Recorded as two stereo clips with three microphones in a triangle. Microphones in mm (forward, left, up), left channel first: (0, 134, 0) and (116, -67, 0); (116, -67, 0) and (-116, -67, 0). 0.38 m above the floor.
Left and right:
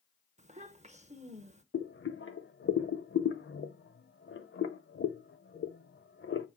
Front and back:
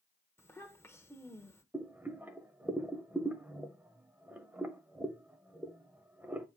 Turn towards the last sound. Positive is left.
turn(degrees=100)